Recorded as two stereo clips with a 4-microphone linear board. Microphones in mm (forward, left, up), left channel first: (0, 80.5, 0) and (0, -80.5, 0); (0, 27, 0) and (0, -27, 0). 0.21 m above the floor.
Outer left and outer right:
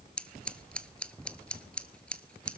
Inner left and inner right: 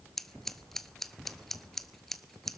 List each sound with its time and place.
0.2 s scissors: 5° left (ahead or behind), 0.8 m